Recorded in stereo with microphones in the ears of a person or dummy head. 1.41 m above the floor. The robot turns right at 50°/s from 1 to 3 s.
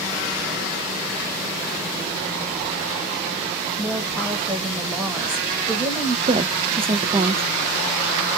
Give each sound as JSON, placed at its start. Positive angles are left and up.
{"t": 3.8, "sound": "a woman speaking", "side_deg": 5, "distance_m": 1.7}
{"t": 6.3, "sound": "a woman speaking", "side_deg": -25, "distance_m": 0.5}